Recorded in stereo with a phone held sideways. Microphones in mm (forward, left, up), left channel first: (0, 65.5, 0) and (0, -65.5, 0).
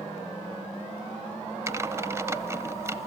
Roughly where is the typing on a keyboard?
Right.